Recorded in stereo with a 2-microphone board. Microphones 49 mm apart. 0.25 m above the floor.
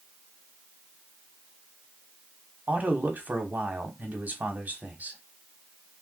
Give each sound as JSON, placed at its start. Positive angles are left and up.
{"t": 2.7, "sound": "a man speaking", "side_deg": -35, "distance_m": 1.2}